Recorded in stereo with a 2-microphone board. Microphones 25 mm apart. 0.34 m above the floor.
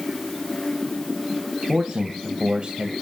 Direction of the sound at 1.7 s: 35° right (ahead or behind).